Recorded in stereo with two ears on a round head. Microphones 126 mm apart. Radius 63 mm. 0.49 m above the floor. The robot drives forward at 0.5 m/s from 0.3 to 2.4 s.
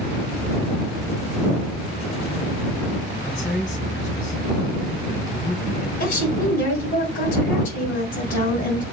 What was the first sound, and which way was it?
A man speaking, 55° left (ahead or behind).